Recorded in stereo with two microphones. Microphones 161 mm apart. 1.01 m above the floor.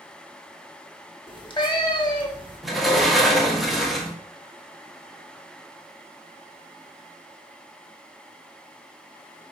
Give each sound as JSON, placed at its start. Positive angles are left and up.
{"t": 1.3, "sound": "a cat meowing", "side_deg": 30, "distance_m": 0.8}
{"t": 2.6, "sound": "a sliding door", "side_deg": 0, "distance_m": 0.7}